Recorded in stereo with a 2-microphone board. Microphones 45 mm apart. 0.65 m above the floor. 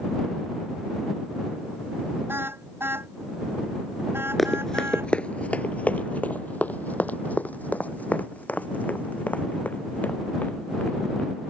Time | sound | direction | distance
2.3 | a car horn | 55° right (ahead or behind) | ?
4.4 | running footsteps | 5° left (ahead or behind) | ?